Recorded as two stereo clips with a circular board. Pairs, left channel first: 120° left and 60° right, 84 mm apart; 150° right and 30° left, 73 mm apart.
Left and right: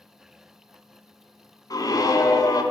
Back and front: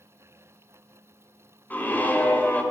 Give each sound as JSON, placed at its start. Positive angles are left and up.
{"t": 1.7, "sound": "a scream", "azimuth_deg": 150, "distance_m": 1.7}